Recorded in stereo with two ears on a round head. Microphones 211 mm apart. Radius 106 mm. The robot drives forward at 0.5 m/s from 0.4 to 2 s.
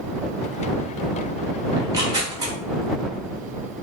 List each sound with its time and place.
1.8 s tearing paper: 15° right (ahead or behind), 0.9 m